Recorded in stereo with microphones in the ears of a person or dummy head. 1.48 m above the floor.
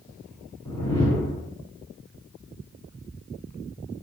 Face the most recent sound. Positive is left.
turn(degrees=15)  # may be behind; listen again after turning